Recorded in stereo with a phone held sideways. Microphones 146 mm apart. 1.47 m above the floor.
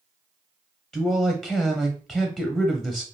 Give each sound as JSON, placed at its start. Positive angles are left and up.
{"t": 0.9, "sound": "a man speaking", "side_deg": 5, "distance_m": 0.5}